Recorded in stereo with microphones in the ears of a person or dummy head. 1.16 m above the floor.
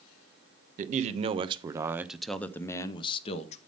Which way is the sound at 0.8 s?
50° right (ahead or behind).